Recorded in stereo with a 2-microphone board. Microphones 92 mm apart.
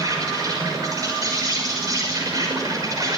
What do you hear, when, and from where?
0.0 s an insect: 40° right (ahead or behind), 6 m